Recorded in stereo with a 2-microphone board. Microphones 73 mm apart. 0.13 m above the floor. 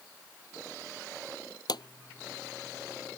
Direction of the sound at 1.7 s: 70° left (ahead or behind).